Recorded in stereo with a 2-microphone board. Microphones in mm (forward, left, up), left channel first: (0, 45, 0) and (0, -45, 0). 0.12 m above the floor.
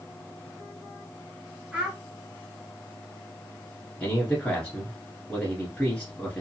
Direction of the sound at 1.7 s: 10° right (ahead or behind).